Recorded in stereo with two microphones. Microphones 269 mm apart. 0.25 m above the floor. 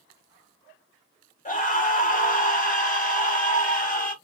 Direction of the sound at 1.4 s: 30° left (ahead or behind).